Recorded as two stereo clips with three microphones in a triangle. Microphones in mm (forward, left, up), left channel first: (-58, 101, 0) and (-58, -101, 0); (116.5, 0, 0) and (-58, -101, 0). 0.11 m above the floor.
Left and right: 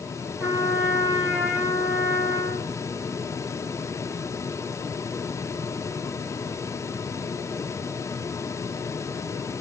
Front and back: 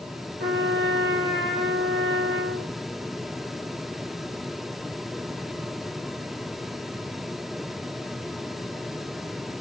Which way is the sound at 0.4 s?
170° right.